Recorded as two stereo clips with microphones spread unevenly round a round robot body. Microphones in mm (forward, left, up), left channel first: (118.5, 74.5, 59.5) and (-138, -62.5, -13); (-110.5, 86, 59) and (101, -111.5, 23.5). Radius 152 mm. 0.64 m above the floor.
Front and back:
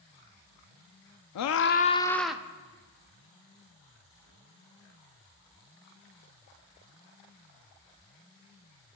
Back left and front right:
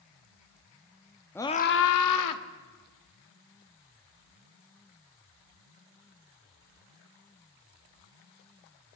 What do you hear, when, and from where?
1.4 s a scream: 45° left, 0.7 m; by 2.4 s 130° left, 1.2 m